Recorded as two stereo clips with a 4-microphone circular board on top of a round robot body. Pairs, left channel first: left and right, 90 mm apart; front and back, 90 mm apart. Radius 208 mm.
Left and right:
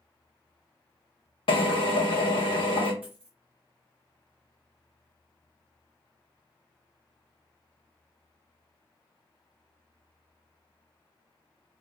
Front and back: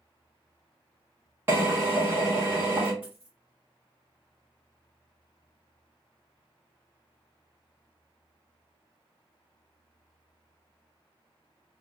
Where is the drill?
115° left, 0.9 m.